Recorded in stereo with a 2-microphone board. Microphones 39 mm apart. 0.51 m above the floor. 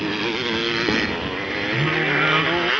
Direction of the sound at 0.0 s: 5° right (ahead or behind).